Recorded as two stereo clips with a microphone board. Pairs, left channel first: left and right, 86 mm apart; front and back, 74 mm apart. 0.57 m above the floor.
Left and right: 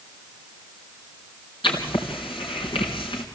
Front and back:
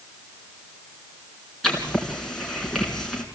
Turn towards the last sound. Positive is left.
turn(degrees=85)